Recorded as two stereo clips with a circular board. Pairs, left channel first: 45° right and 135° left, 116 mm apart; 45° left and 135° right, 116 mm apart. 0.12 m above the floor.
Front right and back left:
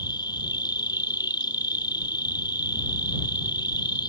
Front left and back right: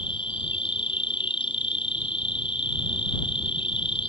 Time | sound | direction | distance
0.0 | an insect | 5° left | ?